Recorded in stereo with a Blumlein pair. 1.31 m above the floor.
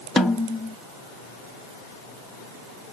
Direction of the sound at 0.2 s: 10° left.